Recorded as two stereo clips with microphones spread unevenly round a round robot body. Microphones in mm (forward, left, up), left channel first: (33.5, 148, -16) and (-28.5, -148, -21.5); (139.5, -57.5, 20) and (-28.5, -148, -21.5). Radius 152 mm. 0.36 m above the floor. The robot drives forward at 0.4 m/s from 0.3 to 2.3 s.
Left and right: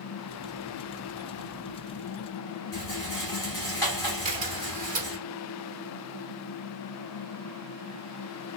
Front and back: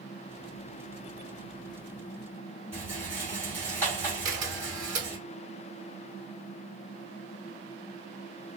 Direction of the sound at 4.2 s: 165° right.